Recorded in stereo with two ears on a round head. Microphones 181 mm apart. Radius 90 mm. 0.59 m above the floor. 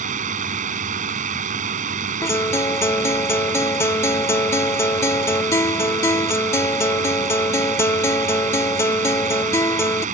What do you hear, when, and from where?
0.0 s a drone: 40° right (ahead or behind)
2.2 s a guitar: 15° left (ahead or behind)